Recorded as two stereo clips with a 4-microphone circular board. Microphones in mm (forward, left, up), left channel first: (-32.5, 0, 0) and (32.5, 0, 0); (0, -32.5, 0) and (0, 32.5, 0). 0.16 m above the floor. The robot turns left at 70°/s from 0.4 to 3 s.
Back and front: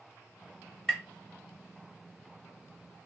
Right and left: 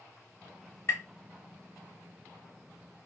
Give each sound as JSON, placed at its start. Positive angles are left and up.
{"t": 0.9, "sound": "tapping", "azimuth_deg": -100, "distance_m": 1.6}